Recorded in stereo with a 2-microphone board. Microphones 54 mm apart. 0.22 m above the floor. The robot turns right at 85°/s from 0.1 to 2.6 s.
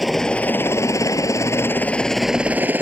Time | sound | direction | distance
0.0 | a helicopter | centre (ahead or behind) | ?